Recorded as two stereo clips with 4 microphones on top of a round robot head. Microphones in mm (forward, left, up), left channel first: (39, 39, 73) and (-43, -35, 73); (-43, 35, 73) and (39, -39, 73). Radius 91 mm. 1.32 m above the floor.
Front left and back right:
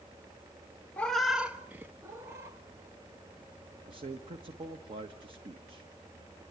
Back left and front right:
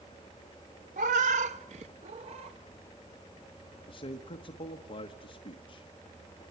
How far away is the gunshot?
I don't hear a gunshot.